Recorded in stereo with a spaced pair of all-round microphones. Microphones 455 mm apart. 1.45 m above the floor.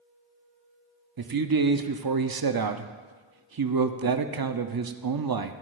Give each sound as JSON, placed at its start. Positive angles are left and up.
{"t": 1.2, "sound": "a man speaking", "side_deg": -55, "distance_m": 0.5}